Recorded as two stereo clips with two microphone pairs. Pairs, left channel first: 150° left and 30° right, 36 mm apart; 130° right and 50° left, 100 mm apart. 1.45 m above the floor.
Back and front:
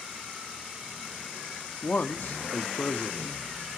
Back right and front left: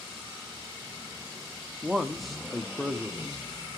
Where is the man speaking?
140° left, 0.5 m.